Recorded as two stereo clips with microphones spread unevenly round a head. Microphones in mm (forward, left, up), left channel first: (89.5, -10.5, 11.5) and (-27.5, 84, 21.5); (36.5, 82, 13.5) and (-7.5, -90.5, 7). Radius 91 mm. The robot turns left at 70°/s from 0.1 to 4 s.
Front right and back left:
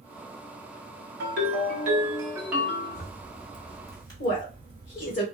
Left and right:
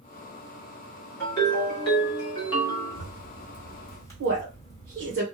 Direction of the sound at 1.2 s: 155° left.